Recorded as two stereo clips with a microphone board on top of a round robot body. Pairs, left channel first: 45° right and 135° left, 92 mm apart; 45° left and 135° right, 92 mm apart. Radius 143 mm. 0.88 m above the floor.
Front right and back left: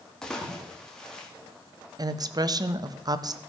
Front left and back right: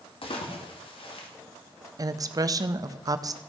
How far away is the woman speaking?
About 0.8 m.